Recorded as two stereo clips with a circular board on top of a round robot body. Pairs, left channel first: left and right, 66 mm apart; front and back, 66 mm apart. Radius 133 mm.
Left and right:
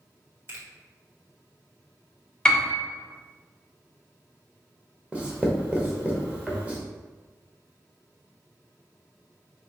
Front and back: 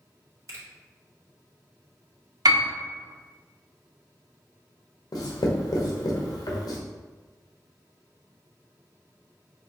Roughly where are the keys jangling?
No keys jangling in this recording.